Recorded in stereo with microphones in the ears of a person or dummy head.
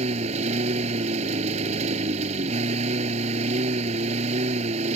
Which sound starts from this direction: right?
A lawn mower, at 0.0 s.